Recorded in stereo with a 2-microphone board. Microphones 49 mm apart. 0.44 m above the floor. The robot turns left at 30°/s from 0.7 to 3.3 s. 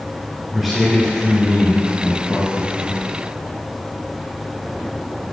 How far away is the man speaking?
About 3.5 m.